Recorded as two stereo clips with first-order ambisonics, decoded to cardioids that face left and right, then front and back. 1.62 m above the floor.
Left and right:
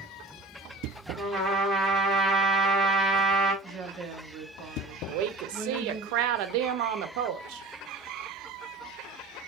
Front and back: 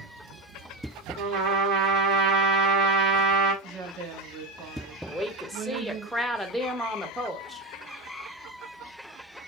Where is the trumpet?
175° right, 1.7 m.